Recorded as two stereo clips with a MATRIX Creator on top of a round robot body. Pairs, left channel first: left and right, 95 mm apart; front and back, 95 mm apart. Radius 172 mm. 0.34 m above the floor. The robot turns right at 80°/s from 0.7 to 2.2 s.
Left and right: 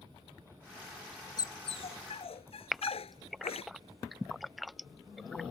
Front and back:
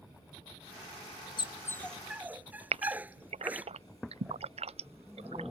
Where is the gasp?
Straight behind.